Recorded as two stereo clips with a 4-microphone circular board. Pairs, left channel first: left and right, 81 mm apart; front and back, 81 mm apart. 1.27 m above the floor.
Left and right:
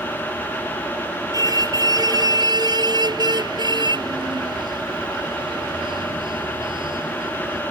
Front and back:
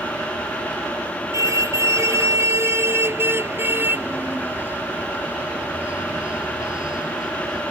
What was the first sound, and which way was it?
A car horn, 130° right.